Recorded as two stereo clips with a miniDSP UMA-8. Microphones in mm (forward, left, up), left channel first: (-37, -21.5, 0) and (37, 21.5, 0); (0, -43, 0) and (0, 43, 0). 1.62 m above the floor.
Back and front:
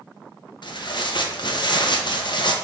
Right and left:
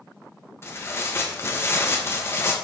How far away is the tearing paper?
About 1.0 m.